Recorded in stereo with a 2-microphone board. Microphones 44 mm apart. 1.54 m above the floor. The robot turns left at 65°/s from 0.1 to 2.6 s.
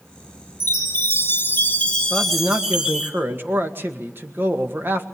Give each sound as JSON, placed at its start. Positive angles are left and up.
{"t": 0.6, "sound": "a chime", "azimuth_deg": 110, "distance_m": 2.5}
{"t": 2.1, "sound": "a man speaking", "azimuth_deg": -20, "distance_m": 1.8}